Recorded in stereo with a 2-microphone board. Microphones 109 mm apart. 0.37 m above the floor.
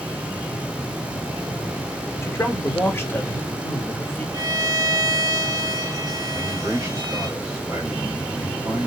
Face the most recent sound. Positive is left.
turn(degrees=-30)  # may be behind; listen again after turning